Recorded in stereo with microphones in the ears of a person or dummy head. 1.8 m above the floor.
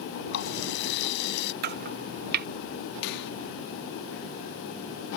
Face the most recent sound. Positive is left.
turn(degrees=55)  # may be behind; listen again after turning